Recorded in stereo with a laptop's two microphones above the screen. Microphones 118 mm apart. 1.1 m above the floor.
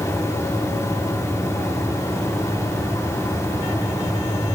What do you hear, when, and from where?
0.0 s a fan: 25° left (ahead or behind), 3.5 m